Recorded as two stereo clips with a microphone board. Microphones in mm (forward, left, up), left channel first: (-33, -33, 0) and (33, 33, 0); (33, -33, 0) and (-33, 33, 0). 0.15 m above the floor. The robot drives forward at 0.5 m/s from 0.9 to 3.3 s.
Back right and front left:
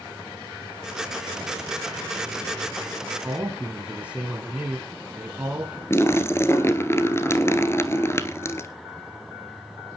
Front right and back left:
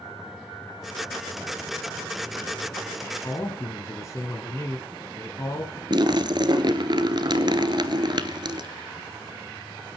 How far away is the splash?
About 0.9 m.